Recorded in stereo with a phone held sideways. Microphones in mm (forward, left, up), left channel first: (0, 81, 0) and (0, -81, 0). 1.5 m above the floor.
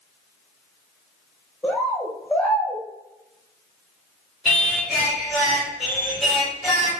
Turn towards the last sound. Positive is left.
turn(degrees=0)  # may be behind; listen again after turning